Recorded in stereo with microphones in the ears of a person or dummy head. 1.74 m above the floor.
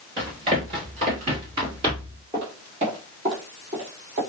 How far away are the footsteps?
About 1.8 m.